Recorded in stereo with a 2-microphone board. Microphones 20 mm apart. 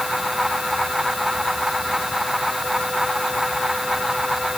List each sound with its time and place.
Only background noise.